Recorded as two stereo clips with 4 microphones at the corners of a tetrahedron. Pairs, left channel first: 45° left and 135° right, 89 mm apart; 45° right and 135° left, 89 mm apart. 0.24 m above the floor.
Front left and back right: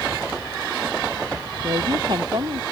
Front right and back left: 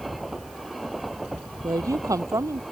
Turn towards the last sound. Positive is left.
turn(degrees=-170)